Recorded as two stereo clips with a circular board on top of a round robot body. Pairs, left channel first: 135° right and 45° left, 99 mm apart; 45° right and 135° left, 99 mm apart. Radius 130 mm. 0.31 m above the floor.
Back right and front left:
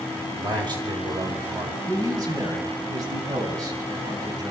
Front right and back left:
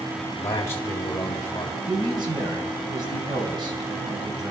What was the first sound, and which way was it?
A man speaking, 15° left.